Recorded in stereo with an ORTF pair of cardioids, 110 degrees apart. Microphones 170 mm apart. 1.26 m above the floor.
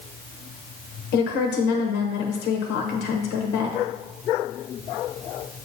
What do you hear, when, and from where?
1.1 s a woman speaking: 70° left, 1.0 m